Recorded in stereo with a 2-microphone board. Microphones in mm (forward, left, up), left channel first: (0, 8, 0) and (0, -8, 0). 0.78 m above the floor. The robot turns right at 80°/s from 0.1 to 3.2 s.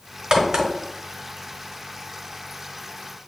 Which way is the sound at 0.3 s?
70° right (ahead or behind).